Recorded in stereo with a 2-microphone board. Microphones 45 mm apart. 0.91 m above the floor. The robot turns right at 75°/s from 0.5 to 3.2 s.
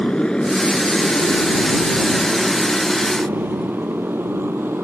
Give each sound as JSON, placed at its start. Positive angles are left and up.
{"t": 0.0, "sound": "a motorcycle", "side_deg": 20}